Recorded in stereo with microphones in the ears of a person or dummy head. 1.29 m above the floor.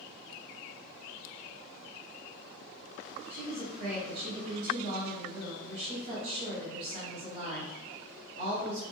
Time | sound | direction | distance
3.3 | a woman speaking | 75° right (ahead or behind) | 1.7 m